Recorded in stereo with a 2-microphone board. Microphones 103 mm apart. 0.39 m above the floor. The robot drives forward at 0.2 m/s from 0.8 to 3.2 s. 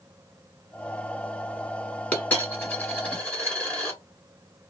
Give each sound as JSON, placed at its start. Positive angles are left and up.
{"t": 2.1, "sound": "a dropped coin", "side_deg": 15, "distance_m": 1.4}